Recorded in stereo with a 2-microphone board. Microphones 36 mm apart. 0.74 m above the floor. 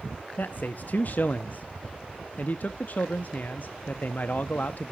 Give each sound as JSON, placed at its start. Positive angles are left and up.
{"t": 0.4, "sound": "a man speaking", "side_deg": 50, "distance_m": 0.7}